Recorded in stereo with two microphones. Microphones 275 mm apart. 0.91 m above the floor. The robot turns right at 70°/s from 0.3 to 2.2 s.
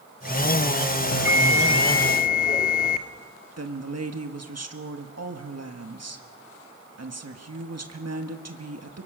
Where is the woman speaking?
65° right (ahead or behind), 1.6 m.